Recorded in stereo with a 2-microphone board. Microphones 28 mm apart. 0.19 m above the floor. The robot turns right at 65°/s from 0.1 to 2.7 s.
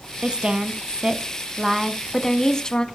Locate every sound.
0.2 s a woman speaking: 115° right, 1.2 m; by 2.9 s 45° left, 1.2 m